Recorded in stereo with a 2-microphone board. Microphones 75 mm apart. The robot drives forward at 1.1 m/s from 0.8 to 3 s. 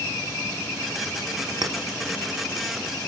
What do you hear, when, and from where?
1.6 s a clink: 60° right (ahead or behind), 1.1 m; by 1.8 s 55° right (ahead or behind), 1.1 m